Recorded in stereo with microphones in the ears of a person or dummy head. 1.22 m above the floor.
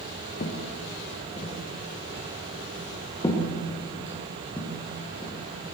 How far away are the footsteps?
About 5.5 m.